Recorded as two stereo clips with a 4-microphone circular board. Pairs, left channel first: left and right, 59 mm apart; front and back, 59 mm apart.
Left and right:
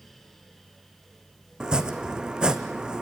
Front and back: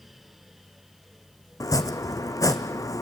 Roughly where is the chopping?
Ahead.